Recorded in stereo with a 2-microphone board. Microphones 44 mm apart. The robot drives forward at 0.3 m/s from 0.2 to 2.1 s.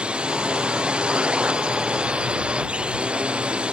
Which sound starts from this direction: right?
A drone, at 0.0 s.